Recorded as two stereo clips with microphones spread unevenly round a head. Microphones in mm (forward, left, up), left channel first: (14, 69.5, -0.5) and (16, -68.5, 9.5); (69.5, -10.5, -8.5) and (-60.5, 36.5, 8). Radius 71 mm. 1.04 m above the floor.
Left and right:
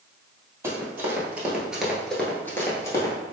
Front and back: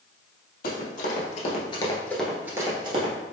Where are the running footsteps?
20° right, 1.9 m; by 3.1 s 160° left, 1.4 m.